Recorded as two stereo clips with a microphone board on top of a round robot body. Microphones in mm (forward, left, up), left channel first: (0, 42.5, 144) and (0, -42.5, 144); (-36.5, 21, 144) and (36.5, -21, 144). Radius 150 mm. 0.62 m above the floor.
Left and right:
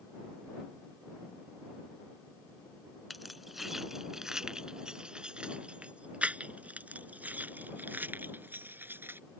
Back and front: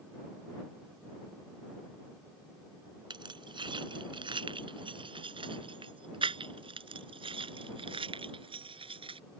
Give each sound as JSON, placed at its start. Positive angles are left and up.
{"t": 3.1, "sound": "keys jangling", "azimuth_deg": 0}